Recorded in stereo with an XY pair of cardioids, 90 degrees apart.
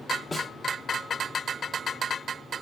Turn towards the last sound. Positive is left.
turn(degrees=40)